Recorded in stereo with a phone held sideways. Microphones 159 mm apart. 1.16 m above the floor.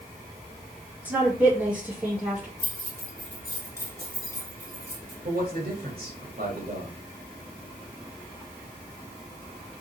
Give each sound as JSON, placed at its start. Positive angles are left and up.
{"t": 1.1, "sound": "a woman speaking", "side_deg": -10, "distance_m": 1.8}
{"t": 2.6, "sound": "keys jangling", "side_deg": -20, "distance_m": 3.0}
{"t": 5.2, "sound": "a man speaking", "side_deg": -65, "distance_m": 1.6}